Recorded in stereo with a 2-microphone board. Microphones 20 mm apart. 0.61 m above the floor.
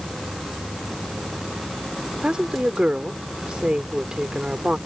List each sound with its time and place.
2.2 s a woman speaking: 55° right (ahead or behind)